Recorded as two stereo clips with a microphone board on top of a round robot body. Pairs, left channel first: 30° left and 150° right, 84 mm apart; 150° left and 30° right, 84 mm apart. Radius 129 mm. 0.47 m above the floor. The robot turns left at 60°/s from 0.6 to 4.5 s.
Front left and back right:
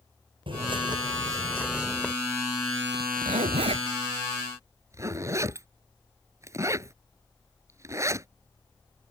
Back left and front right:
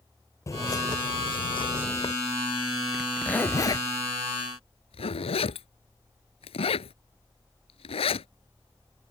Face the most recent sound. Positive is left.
turn(degrees=150)